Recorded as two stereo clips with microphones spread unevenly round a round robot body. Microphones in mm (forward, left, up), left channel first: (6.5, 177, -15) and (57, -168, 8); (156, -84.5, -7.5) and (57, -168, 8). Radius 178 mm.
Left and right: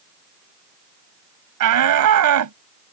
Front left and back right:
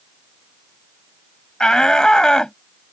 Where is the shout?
45° right.